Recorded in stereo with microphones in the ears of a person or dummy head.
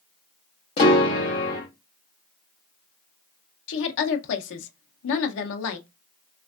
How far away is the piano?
About 0.8 m.